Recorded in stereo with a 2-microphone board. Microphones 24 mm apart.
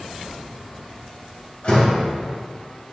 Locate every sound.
1.6 s a door slam: 50° left (ahead or behind), 1.8 m